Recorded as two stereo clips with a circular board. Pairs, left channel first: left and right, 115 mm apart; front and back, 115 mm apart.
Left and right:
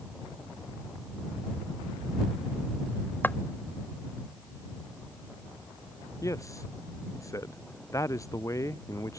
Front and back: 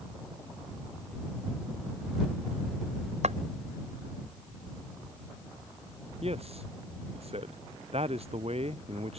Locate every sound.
3.2 s footsteps: 165° left
6.2 s a man speaking: 150° left